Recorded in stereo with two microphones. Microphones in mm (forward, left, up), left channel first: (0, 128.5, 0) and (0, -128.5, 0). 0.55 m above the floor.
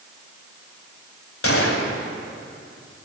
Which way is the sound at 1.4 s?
55° left (ahead or behind).